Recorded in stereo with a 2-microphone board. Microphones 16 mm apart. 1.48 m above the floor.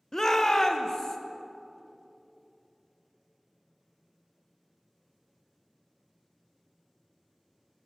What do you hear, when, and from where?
0.1 s a shout: 25° left (ahead or behind), 0.9 m; by 1.2 s 30° left (ahead or behind), 1.4 m